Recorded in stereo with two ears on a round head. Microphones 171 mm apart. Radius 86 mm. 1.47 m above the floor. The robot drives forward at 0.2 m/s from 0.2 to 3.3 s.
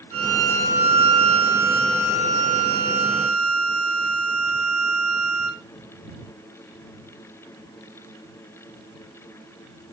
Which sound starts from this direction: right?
A violin, at 0.1 s.